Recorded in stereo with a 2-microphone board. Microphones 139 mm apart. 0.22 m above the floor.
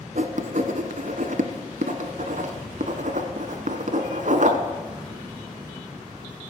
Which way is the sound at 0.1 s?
65° right (ahead or behind).